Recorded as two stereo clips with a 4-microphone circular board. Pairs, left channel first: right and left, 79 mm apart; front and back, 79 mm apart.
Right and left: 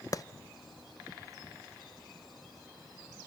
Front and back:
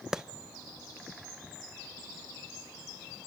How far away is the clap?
About 0.5 m.